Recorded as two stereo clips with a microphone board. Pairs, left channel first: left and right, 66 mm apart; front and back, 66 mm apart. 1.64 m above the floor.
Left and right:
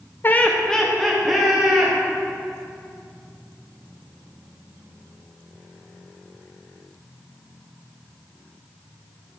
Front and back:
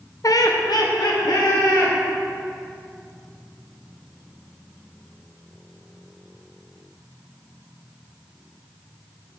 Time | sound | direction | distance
0.2 | laughter | 30° left | 0.6 m